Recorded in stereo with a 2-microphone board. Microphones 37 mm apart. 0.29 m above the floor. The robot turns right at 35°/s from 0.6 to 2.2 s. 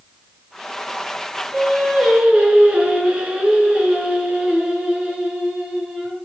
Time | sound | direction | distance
1.5 | singing | 5° right (ahead or behind) | 4 m